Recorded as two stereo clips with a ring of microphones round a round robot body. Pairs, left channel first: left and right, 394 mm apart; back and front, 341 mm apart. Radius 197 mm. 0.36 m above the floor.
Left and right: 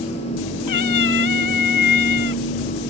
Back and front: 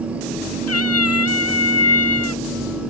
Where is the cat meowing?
135° left.